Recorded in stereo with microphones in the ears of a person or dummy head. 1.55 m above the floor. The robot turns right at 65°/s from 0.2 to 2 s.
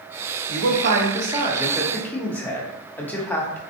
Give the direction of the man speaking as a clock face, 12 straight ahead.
3 o'clock.